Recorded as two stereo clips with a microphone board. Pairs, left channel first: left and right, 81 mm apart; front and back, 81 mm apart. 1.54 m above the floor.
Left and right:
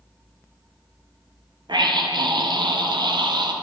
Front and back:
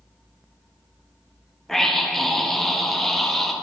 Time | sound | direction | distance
1.7 | a scream | 85° right | 1.0 m